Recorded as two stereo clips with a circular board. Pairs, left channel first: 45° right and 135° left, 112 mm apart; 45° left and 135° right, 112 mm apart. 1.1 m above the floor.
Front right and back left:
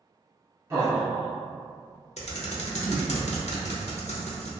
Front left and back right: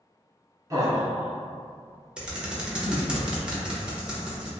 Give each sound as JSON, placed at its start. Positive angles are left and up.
{"t": 0.7, "sound": "laughter", "azimuth_deg": -175, "distance_m": 0.7}
{"t": 2.2, "sound": "typing on a keyboard", "azimuth_deg": -55, "distance_m": 0.6}